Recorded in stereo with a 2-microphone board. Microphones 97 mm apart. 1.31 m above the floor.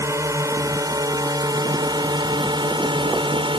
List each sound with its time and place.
0.0 s a drone: 30° right (ahead or behind); by 3.6 s 65° right (ahead or behind)